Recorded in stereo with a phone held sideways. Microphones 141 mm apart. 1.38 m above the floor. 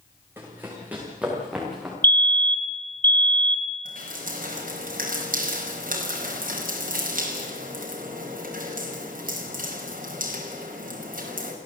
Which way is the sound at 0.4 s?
15° right (ahead or behind).